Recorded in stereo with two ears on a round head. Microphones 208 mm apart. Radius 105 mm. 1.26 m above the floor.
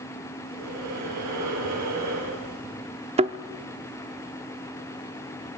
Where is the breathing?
80° right, 8.5 m.